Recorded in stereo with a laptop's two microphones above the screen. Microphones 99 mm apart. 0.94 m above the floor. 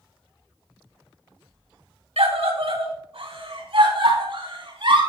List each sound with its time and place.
2.2 s a scream: 75° right (ahead or behind), 2 m; by 5.0 s 60° right (ahead or behind), 6 m